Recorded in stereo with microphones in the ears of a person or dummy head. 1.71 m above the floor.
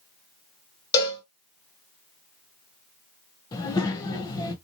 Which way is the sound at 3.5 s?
20° left (ahead or behind).